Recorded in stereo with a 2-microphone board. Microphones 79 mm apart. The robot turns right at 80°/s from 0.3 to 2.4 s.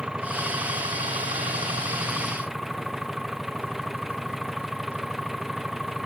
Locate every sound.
0.0 s an engine running: 170° right; by 6.1 s 5° right